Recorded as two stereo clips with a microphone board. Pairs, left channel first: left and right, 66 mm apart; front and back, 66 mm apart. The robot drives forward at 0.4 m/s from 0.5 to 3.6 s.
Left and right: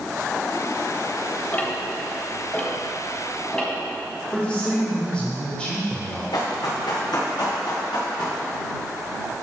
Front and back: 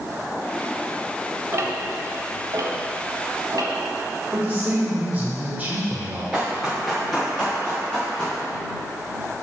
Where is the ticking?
150° left, 0.9 m; by 3.7 s 165° left, 1.6 m.